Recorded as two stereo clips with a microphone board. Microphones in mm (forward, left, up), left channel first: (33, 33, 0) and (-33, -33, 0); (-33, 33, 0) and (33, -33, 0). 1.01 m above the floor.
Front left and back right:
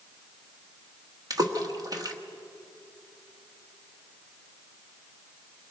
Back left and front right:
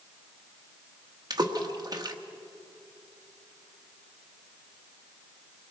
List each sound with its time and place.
1.3 s a splash: 90° right, 1.3 m